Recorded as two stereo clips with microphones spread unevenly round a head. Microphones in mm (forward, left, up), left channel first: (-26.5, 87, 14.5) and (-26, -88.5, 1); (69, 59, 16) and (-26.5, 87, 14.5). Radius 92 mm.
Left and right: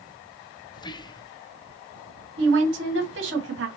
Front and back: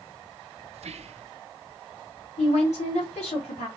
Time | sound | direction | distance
0.7 | whispering | 155° left | 0.7 m
2.4 | a woman speaking | 60° right | 2 m